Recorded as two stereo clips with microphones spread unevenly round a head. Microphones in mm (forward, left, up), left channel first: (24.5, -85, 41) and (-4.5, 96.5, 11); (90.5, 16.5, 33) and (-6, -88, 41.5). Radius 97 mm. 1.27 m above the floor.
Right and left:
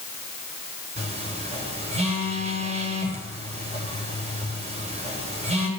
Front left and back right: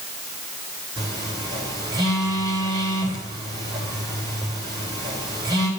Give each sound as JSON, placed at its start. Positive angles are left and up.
{"t": 1.0, "sound": "a phone buzzing", "azimuth_deg": 160, "distance_m": 3.5}